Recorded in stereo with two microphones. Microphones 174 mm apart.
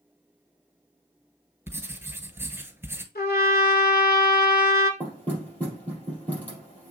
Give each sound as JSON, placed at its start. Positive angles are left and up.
{"t": 1.7, "sound": "writing", "side_deg": -15, "distance_m": 0.8}
{"t": 3.1, "sound": "a trumpet", "side_deg": 65, "distance_m": 1.0}
{"t": 5.0, "sound": "knocking", "side_deg": 10, "distance_m": 3.5}